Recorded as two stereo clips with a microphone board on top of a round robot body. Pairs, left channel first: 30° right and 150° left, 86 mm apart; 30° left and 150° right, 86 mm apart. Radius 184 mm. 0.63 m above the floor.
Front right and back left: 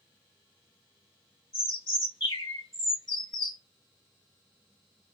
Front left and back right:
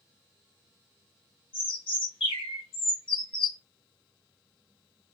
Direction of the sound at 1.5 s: 15° left.